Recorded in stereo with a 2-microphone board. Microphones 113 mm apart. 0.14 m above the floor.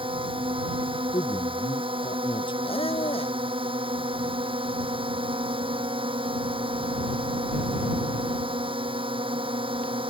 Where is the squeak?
60° left (ahead or behind).